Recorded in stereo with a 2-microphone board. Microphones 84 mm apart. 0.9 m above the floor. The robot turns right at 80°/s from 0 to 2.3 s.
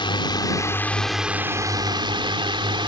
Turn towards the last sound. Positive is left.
turn(degrees=-90)